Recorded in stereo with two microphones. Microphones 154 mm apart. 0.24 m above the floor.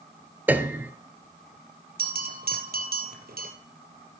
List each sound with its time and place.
0.5 s a piano: 10° right (ahead or behind), 0.9 m
2.0 s a bell: 85° right, 2.5 m